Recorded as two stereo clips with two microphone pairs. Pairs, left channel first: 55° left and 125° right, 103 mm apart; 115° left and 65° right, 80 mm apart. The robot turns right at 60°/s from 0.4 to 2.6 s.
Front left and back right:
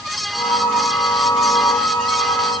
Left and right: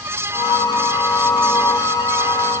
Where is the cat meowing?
No cat meowing in this recording.